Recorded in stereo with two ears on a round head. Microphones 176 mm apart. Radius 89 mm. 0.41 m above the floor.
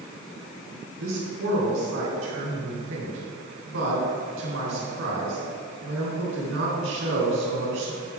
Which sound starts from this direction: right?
A man speaking, at 1.0 s.